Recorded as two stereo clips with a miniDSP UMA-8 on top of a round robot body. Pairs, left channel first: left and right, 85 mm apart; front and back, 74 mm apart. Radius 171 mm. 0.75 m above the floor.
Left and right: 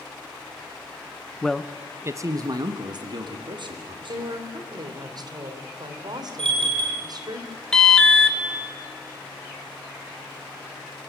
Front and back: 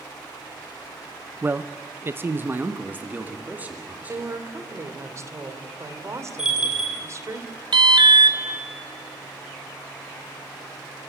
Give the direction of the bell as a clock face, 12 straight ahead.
3 o'clock.